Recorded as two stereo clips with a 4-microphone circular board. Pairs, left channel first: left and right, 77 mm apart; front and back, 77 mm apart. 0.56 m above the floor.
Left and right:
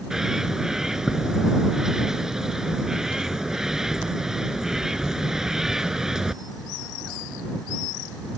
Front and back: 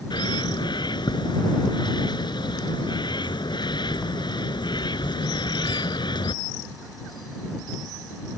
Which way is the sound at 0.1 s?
5° right.